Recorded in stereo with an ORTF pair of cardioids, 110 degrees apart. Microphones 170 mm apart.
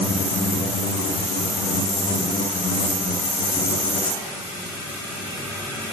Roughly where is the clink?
I don't hear a clink.